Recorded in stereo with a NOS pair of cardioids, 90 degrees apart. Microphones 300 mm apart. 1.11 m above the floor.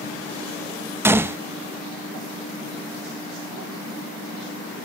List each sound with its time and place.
1.0 s a gunshot: 10° right, 1.0 m